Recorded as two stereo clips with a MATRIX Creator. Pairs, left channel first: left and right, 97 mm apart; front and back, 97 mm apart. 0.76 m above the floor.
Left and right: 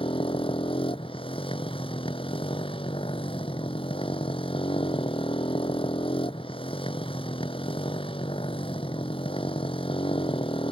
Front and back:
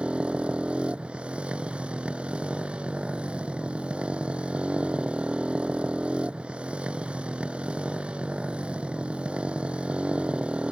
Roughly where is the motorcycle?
Left.